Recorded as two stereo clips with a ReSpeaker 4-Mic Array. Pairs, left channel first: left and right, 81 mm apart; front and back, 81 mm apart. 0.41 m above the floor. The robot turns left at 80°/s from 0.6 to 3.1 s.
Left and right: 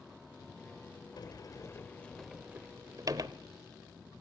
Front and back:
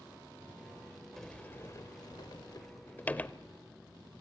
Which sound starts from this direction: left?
A sliding door, at 1.2 s.